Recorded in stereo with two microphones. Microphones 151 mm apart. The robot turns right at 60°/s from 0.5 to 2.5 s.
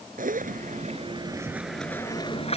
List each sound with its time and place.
0.2 s a zipper: 75° right; by 2.6 s 45° left